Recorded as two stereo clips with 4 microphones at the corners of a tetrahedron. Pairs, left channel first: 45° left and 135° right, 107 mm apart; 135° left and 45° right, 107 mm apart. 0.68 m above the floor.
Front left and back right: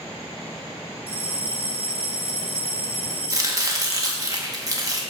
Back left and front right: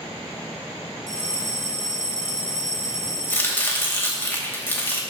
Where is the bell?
105° right, 1.1 m.